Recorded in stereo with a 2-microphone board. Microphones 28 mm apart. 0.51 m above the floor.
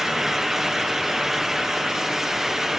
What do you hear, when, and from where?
Only background noise.